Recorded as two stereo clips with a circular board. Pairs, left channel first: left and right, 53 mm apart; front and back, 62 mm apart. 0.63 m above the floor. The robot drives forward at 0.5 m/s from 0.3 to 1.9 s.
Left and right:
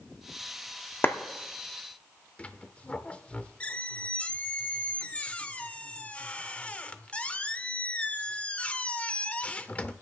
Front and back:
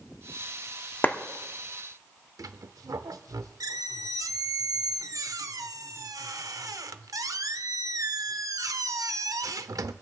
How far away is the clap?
About 0.8 m.